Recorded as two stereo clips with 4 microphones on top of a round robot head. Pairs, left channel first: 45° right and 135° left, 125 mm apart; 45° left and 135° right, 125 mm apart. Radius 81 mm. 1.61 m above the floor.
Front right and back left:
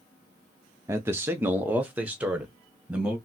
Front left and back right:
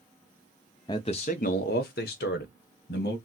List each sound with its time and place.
0.9 s a man speaking: 85° left, 0.5 m; by 3.2 s 55° left, 1.4 m